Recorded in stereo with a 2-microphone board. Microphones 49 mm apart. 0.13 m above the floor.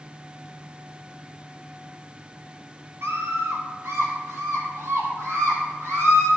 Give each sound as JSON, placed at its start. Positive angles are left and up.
{"t": 3.0, "sound": "a scream", "side_deg": -60, "distance_m": 3.5}